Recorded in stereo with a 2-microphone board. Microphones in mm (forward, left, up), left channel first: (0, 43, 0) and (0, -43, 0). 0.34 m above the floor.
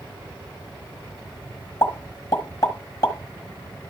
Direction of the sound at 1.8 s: 40° left (ahead or behind).